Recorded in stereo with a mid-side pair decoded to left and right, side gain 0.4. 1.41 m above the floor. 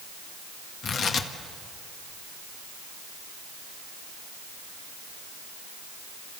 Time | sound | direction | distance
0.8 | tearing paper | 65° left | 1.6 m